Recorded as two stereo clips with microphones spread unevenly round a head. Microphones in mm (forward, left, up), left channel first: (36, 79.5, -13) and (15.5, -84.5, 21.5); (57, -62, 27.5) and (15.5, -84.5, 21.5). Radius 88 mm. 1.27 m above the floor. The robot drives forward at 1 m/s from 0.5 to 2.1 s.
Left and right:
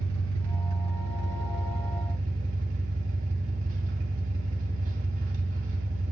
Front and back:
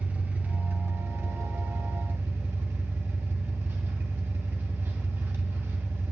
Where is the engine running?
95° right, 1.1 m; by 6.1 s 145° right, 2 m.